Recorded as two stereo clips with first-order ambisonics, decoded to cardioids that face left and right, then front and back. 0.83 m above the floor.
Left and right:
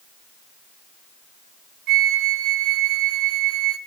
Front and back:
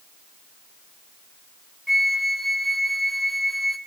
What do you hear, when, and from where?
1.9 s a flute: 85° right, 0.7 m